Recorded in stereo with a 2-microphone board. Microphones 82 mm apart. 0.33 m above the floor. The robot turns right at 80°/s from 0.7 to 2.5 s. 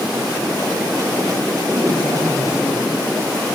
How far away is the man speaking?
About 2.5 m.